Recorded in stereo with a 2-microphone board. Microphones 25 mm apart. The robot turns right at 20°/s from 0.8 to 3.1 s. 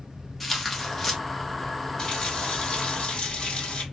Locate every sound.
0.4 s tearing paper: 5° left (ahead or behind), 0.8 m; by 1.2 s 10° left (ahead or behind), 0.8 m
2.0 s a running tap: 30° left (ahead or behind), 1.4 m; by 3.8 s 55° left (ahead or behind), 1.4 m